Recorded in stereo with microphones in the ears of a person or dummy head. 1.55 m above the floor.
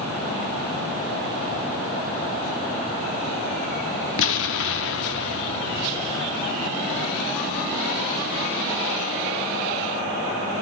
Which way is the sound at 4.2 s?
70° left (ahead or behind).